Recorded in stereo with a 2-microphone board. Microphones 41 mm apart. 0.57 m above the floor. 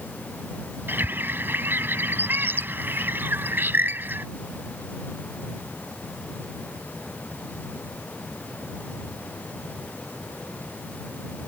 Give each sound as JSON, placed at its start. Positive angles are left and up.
{"t": 0.9, "sound": "a bird", "side_deg": -55}